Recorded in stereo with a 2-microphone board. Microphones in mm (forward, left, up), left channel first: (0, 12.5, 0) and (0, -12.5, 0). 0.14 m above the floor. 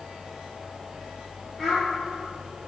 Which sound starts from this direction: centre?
A child speaking, at 1.6 s.